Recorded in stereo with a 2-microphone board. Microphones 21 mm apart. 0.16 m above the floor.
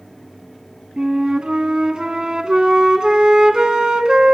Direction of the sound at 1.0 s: 40° right (ahead or behind).